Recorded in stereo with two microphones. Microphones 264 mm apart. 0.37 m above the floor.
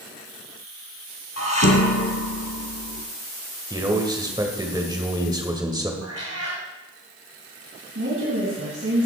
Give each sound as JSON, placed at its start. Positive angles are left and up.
{"t": 1.4, "sound": "dishes clattering", "side_deg": 70, "distance_m": 1.7}
{"t": 3.7, "sound": "a man speaking", "side_deg": -15, "distance_m": 1.8}
{"t": 6.0, "sound": "a cat meowing", "side_deg": -70, "distance_m": 3.5}
{"t": 8.0, "sound": "a woman speaking", "side_deg": -60, "distance_m": 2.5}